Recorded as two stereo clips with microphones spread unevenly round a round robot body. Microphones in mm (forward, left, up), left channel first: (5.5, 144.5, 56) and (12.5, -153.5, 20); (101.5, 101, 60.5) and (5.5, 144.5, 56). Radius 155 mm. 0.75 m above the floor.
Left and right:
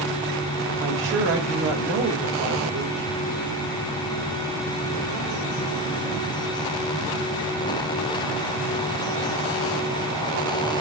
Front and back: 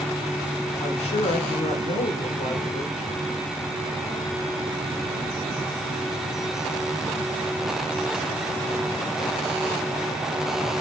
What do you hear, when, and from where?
0.8 s a woman speaking: 45° right, 4 m